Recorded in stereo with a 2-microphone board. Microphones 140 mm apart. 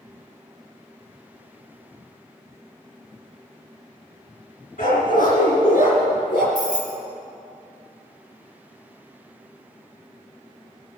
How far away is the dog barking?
About 3.5 m.